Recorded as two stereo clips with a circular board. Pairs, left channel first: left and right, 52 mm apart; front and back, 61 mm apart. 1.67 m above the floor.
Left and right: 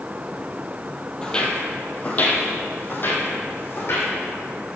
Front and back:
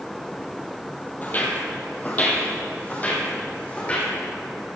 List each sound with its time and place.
1.2 s footsteps: 30° left, 1.9 m; by 4.1 s 60° left, 3.5 m